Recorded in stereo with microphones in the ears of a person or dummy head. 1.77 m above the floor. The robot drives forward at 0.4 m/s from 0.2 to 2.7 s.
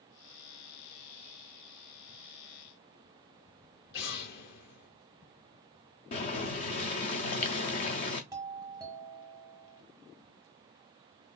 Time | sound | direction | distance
3.9 | an explosion | 65° left (ahead or behind) | 0.9 m
6.1 | boiling | 35° left (ahead or behind) | 0.5 m
8.3 | a doorbell | 20° right (ahead or behind) | 1.6 m